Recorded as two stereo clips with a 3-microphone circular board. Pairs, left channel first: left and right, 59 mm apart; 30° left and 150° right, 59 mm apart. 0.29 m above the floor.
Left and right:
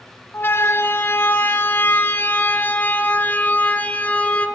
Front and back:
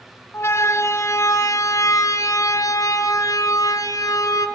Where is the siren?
55° left, 2.5 m; by 4.5 s 25° left, 4.5 m.